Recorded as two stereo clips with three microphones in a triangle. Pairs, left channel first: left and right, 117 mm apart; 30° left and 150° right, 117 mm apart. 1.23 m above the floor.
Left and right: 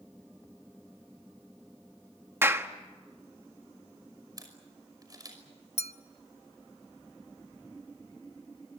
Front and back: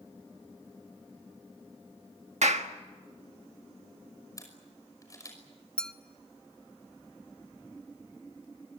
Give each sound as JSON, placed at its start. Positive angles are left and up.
{"t": 2.4, "sound": "a clap", "azimuth_deg": -160, "distance_m": 1.5}
{"t": 4.4, "sound": "a camera shutter", "azimuth_deg": -30, "distance_m": 5.5}
{"t": 5.8, "sound": "a clink", "azimuth_deg": 110, "distance_m": 1.0}